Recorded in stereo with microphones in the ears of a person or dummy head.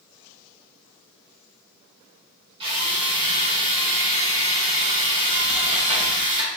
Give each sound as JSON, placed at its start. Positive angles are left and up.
{"t": 2.6, "sound": "a drill", "side_deg": -35, "distance_m": 2.0}